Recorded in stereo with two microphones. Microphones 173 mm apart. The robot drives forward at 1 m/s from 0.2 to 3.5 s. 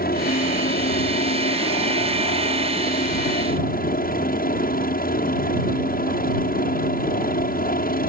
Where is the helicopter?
60° left (ahead or behind); by 8.1 s 55° left (ahead or behind).